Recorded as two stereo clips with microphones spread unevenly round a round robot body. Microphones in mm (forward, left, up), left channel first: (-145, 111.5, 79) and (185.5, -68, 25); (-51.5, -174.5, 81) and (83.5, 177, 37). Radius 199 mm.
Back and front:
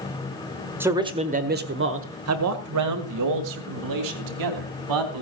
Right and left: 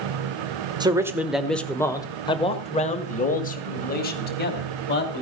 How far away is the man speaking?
About 1.2 m.